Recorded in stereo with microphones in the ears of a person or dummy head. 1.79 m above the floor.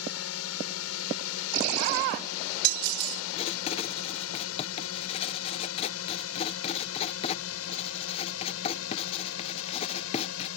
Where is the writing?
30° left (ahead or behind).